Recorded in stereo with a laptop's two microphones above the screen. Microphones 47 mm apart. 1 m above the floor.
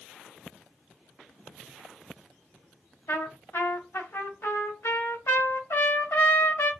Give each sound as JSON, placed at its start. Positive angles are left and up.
{"t": 3.1, "sound": "a trumpet", "side_deg": 80, "distance_m": 2.0}